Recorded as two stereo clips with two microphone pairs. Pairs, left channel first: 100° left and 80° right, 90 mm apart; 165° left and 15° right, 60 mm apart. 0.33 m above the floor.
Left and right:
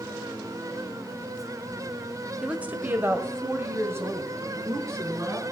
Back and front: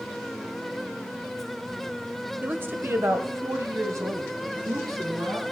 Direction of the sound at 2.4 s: 20° right.